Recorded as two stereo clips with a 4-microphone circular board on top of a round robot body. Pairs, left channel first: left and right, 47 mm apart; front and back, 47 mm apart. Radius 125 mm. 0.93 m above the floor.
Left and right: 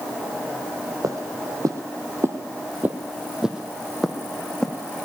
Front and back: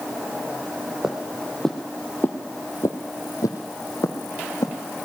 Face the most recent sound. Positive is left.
turn(degrees=10)